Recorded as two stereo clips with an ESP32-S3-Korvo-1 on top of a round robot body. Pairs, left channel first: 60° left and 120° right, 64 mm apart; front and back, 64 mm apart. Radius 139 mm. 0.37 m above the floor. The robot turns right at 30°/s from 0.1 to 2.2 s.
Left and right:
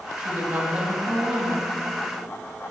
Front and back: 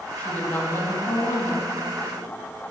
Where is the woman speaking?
65° right, 4 m; by 1.7 s 20° right, 4 m.